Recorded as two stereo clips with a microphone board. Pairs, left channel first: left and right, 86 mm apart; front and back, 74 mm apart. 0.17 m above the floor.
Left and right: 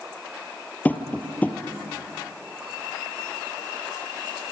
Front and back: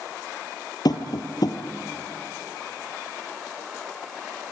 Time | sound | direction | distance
0.8 | tapping | 20° left | 2 m